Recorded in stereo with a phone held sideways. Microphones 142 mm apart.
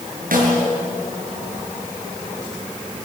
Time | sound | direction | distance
0.3 | a snare drum | 85° right | 6.5 m